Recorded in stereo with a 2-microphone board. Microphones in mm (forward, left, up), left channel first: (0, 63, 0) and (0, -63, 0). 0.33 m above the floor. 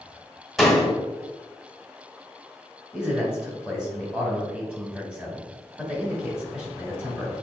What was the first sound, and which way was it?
A door slam, centre (ahead or behind).